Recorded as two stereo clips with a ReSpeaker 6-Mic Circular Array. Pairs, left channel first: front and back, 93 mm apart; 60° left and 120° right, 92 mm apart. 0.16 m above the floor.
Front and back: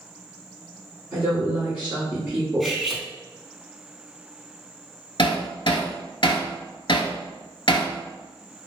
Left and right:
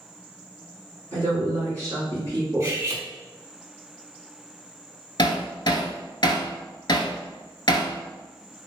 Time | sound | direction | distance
1.1 | a woman speaking | 115° right | 1.6 m
2.6 | cutlery clinking | 90° right | 0.7 m
5.2 | hammering | 25° left | 0.5 m